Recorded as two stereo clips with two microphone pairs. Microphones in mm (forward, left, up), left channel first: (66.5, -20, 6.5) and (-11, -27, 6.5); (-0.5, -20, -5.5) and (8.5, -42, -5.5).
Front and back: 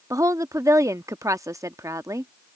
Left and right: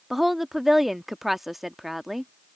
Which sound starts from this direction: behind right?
A woman speaking, at 0.1 s.